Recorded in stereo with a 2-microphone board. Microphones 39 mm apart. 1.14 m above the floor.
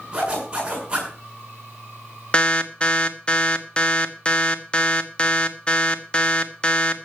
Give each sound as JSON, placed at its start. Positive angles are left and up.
{"t": 0.1, "sound": "a zipper", "side_deg": -20, "distance_m": 8.5}
{"t": 2.3, "sound": "an alarm", "side_deg": 25, "distance_m": 1.1}